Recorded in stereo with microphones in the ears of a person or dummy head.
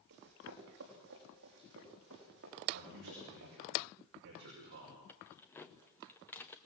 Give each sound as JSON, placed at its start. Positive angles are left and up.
{"t": 0.1, "sound": "running footsteps", "side_deg": -55, "distance_m": 4.5}
{"t": 2.7, "sound": "a man speaking", "side_deg": -55, "distance_m": 6.5}
{"t": 5.1, "sound": "keys jangling", "side_deg": 10, "distance_m": 0.7}